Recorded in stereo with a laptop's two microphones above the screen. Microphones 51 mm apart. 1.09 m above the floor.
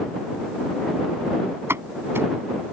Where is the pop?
55° right (ahead or behind).